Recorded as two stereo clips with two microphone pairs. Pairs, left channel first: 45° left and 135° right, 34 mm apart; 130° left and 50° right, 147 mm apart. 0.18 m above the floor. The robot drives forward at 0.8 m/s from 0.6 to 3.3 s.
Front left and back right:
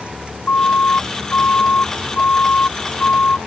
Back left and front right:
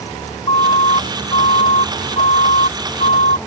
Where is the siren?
80° left; by 3.4 s 95° left.